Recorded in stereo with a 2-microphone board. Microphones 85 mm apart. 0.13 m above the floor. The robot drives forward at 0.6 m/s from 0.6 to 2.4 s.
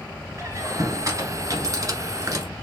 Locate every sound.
0.4 s a squeak: 35° right (ahead or behind), 1.5 m; by 2.5 s 40° right (ahead or behind), 1.4 m